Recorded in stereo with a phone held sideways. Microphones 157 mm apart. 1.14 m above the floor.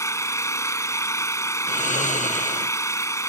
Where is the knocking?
No knocking in this recording.